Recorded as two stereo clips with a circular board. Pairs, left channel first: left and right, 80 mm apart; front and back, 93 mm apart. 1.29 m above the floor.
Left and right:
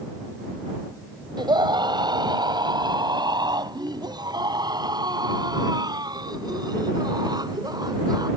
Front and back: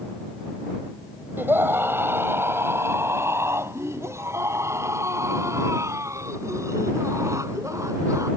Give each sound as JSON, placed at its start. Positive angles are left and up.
{"t": 1.4, "sound": "a scream", "azimuth_deg": -115}